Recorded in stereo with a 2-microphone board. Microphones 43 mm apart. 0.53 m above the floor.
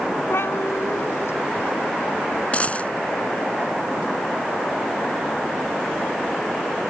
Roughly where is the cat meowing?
Left.